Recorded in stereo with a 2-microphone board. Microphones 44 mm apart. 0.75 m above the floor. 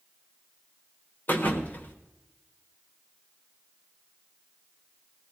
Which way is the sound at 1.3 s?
40° left (ahead or behind).